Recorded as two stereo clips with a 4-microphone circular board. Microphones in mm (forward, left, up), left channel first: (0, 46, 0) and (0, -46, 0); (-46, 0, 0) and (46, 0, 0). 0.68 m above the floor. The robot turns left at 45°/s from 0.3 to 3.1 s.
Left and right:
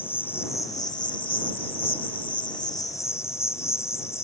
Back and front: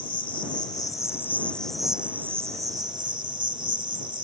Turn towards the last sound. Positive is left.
turn(degrees=30)